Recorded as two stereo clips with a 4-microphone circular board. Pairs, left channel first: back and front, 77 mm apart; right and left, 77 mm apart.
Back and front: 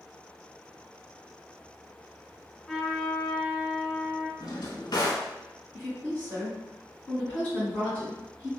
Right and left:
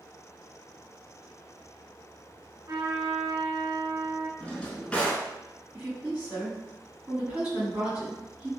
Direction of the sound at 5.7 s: 135° left.